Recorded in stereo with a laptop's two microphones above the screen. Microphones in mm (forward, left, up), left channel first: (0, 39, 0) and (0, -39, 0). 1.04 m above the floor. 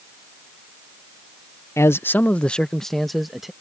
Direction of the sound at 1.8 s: 35° left (ahead or behind).